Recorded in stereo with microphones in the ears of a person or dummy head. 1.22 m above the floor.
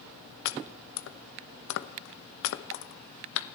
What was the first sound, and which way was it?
Chopping, 70° left (ahead or behind).